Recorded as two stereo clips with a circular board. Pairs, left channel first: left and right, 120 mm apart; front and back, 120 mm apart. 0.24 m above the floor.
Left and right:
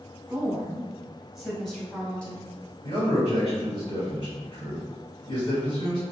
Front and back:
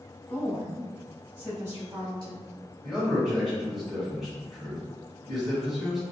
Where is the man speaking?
90° left, 1.8 m.